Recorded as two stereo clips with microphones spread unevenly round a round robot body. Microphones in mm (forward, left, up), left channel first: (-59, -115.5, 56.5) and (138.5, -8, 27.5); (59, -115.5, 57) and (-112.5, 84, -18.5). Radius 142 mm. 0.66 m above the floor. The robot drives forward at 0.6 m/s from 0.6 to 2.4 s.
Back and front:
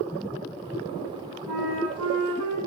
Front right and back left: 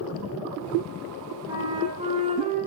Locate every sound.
1.5 s a flute: 55° left, 7 m; by 2.6 s 60° left, 6.5 m